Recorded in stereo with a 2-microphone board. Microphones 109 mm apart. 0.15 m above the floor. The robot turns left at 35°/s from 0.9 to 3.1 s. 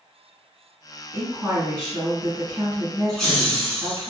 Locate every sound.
1.1 s a woman speaking: 15° right (ahead or behind), 1.3 m; by 4.1 s 20° right (ahead or behind), 1.3 m
3.1 s laughter: 5° left (ahead or behind), 1.5 m